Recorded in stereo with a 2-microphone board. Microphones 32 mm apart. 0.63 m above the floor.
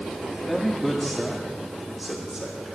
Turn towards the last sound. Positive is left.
turn(degrees=-10)  # may be behind; listen again after turning